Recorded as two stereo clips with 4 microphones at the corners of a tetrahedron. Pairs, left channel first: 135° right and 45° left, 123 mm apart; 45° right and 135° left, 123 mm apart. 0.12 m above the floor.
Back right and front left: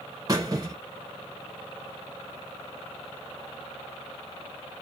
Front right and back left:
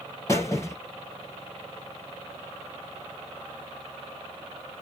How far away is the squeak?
About 1.1 m.